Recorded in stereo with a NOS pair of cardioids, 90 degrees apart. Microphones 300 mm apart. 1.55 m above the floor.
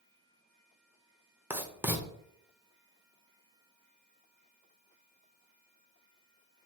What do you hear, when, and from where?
1.5 s writing: 5° right, 0.7 m